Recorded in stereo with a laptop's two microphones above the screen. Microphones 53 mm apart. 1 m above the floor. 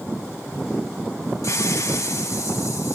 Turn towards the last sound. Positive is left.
turn(degrees=85)